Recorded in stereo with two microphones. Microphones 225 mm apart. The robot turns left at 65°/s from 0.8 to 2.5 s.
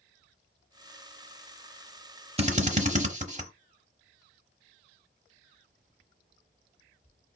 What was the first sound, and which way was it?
A drill, 25° right (ahead or behind).